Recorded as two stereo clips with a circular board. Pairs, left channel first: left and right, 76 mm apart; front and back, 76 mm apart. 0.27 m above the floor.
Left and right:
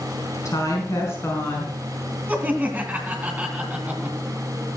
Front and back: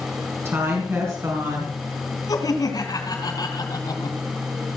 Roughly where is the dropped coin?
No dropped coin in this recording.